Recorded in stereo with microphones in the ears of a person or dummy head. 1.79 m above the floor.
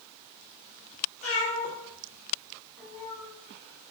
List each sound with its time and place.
1.2 s a cat meowing: 45° left (ahead or behind), 1.5 m; by 3.3 s 15° left (ahead or behind), 2.5 m